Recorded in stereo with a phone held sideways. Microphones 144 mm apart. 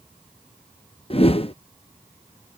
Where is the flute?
I don't hear a flute.